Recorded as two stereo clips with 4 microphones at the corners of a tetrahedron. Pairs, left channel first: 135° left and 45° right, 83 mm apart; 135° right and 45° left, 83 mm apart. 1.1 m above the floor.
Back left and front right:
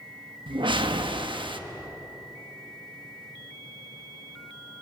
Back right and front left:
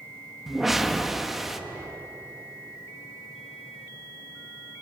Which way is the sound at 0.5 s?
40° right.